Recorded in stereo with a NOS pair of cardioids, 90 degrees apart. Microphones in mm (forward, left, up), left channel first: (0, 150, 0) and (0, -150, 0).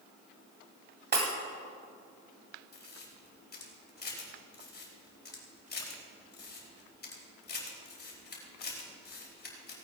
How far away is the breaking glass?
About 2.5 m.